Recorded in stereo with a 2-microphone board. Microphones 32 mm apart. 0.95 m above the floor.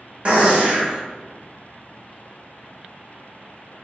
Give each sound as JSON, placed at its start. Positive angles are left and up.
{"t": 0.2, "sound": "a gunshot", "side_deg": -35, "distance_m": 1.4}